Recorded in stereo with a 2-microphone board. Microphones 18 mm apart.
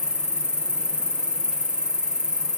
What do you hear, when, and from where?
0.0 s an insect: 60° right (ahead or behind), 2 m